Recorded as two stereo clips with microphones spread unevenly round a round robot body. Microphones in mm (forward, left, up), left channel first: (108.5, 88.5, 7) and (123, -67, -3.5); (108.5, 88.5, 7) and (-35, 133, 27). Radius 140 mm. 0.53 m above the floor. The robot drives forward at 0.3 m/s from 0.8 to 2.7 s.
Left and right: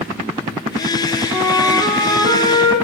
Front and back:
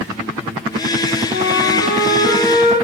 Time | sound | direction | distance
1.3 | a flute | 110° right | 2.5 m